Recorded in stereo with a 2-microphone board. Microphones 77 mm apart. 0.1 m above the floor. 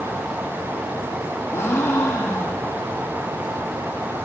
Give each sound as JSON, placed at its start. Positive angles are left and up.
{"t": 1.5, "sound": "a gasp", "side_deg": 30, "distance_m": 5.5}